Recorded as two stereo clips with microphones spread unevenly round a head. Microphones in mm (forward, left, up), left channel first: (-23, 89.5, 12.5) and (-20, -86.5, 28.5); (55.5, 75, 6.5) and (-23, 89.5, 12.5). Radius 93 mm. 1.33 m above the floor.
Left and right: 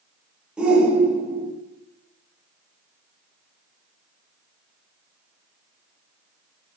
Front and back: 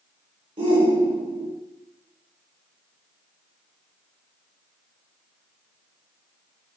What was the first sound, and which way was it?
A shout, 175° right.